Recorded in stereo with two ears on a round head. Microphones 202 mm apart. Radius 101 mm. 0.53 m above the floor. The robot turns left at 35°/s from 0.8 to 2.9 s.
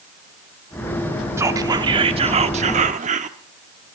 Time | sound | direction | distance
1.4 | whispering | 20° right | 1.1 m